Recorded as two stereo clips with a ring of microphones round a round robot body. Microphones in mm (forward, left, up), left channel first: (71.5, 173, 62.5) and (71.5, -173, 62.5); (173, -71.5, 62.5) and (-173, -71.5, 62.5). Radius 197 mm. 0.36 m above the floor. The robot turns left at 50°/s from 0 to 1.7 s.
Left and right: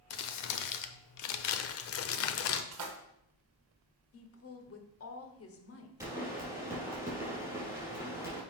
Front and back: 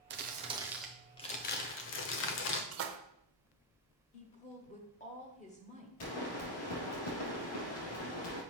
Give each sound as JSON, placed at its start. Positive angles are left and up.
{"t": 0.1, "sound": "crumpling", "azimuth_deg": 125, "distance_m": 0.8}
{"t": 2.7, "sound": "a splash", "azimuth_deg": -130, "distance_m": 1.2}
{"t": 4.1, "sound": "a woman speaking", "azimuth_deg": 65, "distance_m": 1.3}
{"t": 6.0, "sound": "a pop", "azimuth_deg": -5, "distance_m": 4.0}